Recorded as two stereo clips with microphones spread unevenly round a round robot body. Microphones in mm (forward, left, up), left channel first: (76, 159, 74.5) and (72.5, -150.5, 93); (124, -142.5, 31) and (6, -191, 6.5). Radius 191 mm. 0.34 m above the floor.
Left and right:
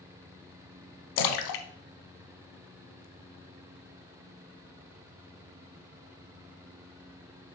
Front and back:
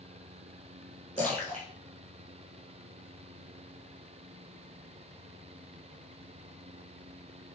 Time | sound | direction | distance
1.2 | a splash | 95° left | 1.0 m